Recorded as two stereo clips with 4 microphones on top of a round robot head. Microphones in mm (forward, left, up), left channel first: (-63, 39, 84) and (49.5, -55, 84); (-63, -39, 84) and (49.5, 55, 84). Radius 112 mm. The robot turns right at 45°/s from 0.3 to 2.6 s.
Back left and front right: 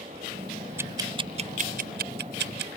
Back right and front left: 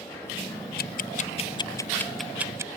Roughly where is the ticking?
Behind right.